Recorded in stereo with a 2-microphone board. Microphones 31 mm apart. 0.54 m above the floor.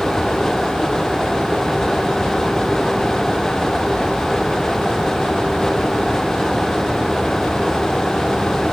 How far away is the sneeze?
I don't hear a sneeze.